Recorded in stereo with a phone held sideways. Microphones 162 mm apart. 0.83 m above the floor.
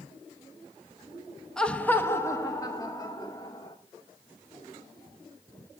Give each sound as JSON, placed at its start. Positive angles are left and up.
{"t": 1.6, "sound": "laughter", "side_deg": 5, "distance_m": 0.9}